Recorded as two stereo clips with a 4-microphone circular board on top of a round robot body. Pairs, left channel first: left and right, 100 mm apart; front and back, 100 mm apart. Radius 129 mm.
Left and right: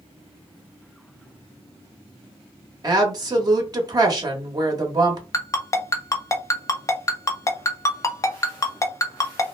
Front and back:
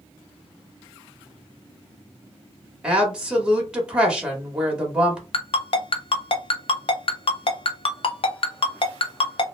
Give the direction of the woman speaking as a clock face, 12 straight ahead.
3 o'clock.